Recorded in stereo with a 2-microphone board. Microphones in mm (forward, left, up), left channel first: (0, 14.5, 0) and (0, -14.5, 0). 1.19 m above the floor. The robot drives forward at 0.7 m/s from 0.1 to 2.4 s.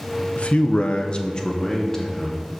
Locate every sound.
0.4 s a man speaking: 45° left (ahead or behind), 0.6 m; by 2.5 s 15° left (ahead or behind), 1.4 m